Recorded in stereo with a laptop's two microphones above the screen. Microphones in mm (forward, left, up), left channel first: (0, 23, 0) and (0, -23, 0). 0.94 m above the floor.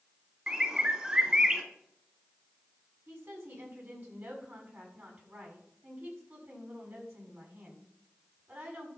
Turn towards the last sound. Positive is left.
turn(degrees=-55)  # may be behind; listen again after turning